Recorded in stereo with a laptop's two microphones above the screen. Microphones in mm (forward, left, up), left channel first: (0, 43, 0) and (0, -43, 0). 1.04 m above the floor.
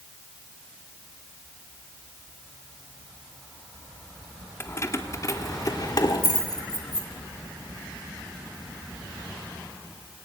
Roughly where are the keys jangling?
Left.